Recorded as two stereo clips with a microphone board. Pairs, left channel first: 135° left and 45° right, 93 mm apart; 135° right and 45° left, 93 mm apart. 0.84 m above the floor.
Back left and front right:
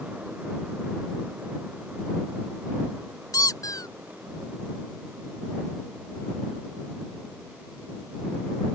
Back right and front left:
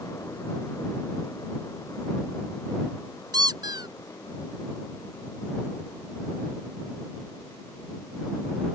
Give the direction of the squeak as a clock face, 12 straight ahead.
9 o'clock.